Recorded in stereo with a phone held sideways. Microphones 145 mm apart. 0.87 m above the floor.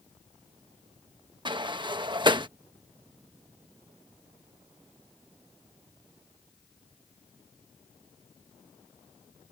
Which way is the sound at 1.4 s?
35° right (ahead or behind).